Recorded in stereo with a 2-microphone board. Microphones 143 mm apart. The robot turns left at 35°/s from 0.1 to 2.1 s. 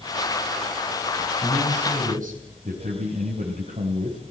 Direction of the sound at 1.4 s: 50° right (ahead or behind).